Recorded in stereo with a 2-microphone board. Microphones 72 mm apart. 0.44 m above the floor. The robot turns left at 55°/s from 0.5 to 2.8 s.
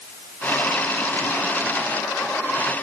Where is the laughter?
I don't hear laughter.